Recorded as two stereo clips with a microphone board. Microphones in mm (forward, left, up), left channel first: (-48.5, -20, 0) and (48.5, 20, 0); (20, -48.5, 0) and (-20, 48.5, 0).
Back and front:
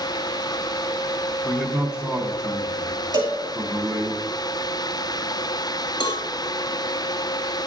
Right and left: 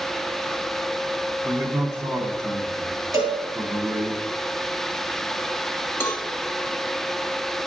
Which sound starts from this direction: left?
A man speaking, at 1.4 s.